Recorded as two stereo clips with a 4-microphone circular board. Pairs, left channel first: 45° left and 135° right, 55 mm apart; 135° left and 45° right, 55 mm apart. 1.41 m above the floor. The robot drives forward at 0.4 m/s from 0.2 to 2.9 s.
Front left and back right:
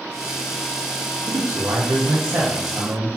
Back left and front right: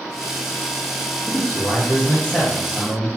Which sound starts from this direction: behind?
A man speaking, at 1.3 s.